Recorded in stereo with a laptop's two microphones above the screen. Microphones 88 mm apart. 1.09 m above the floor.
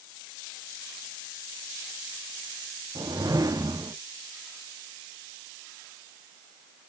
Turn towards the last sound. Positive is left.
turn(degrees=-45)  # may be behind; listen again after turning